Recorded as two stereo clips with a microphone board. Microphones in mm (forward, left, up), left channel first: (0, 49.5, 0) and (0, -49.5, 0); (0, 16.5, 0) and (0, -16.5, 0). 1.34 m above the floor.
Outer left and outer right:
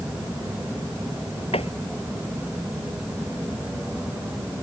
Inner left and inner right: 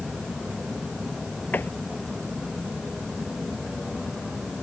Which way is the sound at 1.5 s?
80° left.